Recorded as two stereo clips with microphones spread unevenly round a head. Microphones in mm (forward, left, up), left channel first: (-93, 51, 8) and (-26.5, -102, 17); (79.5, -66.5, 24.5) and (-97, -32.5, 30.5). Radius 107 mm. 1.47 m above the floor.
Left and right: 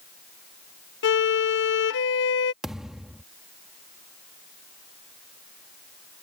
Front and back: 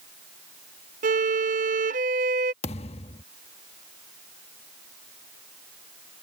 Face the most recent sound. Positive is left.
turn(degrees=15)